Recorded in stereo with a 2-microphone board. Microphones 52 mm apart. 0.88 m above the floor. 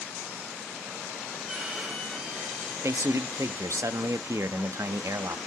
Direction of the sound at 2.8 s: 75° right (ahead or behind).